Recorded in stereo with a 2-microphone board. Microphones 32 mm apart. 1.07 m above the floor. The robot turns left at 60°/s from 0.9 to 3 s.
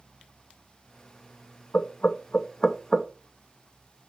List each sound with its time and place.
1.7 s knocking: 60° left (ahead or behind), 0.6 m; by 3.1 s 5° right (ahead or behind), 0.6 m